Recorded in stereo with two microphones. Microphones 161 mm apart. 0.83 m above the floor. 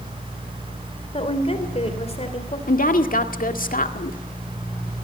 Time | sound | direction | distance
1.1 | a woman speaking | 40° left (ahead or behind) | 3 m
2.7 | a woman speaking | 60° left (ahead or behind) | 1.8 m